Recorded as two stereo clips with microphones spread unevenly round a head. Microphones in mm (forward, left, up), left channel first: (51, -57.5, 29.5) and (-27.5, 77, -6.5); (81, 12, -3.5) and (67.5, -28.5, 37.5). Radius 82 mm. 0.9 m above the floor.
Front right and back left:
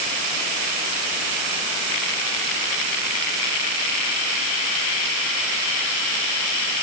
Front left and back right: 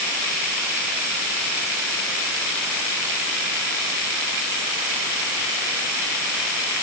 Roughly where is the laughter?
No laughter in this recording.